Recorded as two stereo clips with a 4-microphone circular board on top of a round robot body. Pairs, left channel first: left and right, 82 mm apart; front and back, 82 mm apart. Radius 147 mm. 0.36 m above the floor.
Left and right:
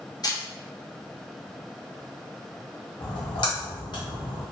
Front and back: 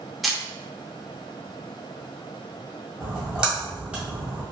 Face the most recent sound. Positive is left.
turn(degrees=100)